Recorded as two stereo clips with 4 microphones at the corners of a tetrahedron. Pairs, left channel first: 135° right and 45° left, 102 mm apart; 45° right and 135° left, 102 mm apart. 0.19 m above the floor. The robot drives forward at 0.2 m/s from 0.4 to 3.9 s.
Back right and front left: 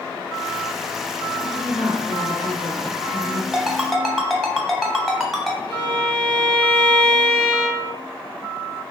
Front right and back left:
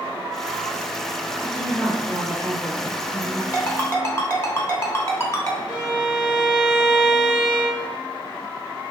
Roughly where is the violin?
Behind right.